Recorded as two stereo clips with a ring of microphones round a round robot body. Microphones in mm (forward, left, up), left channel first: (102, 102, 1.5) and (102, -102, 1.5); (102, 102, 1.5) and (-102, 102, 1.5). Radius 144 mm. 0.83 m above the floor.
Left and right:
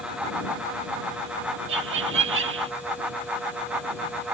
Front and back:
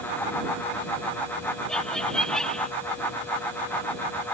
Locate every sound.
1.7 s laughter: 85° right